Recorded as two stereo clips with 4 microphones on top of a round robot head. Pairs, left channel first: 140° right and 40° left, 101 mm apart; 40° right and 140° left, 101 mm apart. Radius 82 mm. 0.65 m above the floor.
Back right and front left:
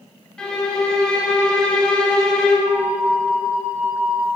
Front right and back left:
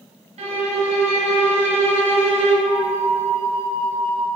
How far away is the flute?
About 1.1 m.